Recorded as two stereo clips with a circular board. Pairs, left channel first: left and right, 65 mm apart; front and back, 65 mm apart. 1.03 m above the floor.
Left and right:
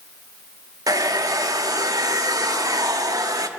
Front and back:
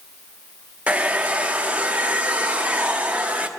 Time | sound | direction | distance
0.9 | a hair dryer | 110° right | 0.9 m